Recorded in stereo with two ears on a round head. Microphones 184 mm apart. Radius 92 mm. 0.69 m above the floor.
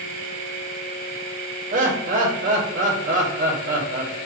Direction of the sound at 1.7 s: 40° right (ahead or behind).